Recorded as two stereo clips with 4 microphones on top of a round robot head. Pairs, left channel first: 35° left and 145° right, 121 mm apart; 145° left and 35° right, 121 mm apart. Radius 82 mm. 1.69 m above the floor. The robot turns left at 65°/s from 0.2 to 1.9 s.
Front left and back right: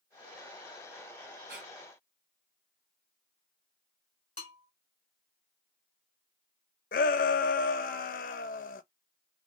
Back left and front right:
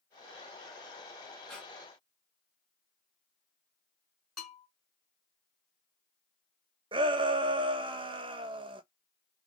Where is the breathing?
125° right, 1.2 m; by 1.7 s 140° right, 1.2 m.